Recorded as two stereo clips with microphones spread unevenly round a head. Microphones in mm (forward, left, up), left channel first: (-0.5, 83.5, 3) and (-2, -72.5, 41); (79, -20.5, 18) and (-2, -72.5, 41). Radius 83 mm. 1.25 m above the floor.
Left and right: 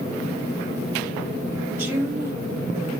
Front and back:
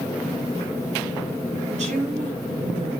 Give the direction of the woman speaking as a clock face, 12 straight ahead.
6 o'clock.